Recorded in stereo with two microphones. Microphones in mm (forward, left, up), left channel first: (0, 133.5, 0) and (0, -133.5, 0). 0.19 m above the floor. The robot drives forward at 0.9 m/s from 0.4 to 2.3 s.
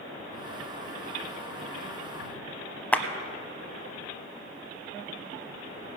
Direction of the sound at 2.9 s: 5° left (ahead or behind).